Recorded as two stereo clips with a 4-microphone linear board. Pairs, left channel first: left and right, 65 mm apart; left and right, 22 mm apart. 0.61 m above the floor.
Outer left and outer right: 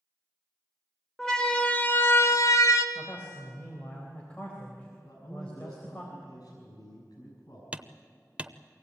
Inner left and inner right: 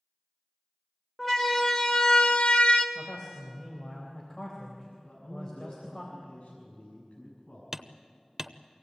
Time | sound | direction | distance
1.2 | a siren | 5° left (ahead or behind) | 2 m
3.0 | a man speaking | 20° left (ahead or behind) | 3.5 m
5.0 | a man speaking | 70° left (ahead or behind) | 5.5 m
7.7 | hammering | 20° right (ahead or behind) | 0.7 m